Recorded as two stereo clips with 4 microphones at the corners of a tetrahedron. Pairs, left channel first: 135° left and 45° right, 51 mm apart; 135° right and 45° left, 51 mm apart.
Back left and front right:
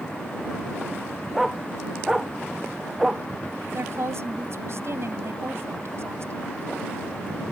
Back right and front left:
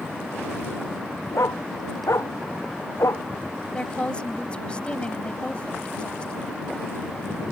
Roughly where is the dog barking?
Behind right.